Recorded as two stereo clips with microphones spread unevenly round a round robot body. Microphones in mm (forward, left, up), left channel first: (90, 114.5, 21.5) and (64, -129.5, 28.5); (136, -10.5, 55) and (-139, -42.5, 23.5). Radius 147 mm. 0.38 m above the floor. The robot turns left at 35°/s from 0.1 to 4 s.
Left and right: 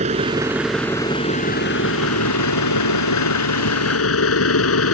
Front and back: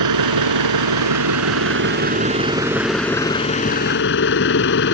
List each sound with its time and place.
0.0 s an engine running: 165° right; by 5.0 s 60° left